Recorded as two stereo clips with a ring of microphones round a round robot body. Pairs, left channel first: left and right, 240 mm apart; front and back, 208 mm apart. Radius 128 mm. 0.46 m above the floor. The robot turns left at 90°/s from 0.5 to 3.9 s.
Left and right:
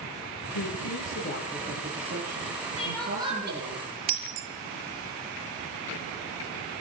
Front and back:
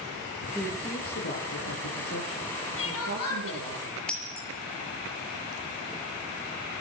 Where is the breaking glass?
85° right, 6 m.